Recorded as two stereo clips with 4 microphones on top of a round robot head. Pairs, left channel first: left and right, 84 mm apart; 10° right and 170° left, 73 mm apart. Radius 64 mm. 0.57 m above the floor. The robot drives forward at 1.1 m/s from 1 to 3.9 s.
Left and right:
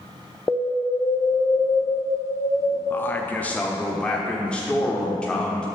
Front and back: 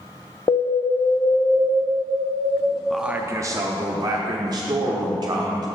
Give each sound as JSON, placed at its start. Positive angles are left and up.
{"t": 0.5, "sound": "an alarm", "azimuth_deg": 25, "distance_m": 0.7}
{"t": 2.9, "sound": "a man speaking", "azimuth_deg": 75, "distance_m": 0.6}